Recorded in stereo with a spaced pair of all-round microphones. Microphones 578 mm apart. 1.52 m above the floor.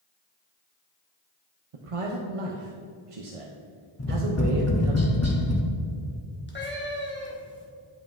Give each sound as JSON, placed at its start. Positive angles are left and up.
{"t": 1.7, "sound": "a man speaking", "side_deg": -65, "distance_m": 0.7}
{"t": 4.0, "sound": "tapping", "side_deg": 25, "distance_m": 0.8}
{"t": 6.5, "sound": "a cat meowing", "side_deg": 20, "distance_m": 1.0}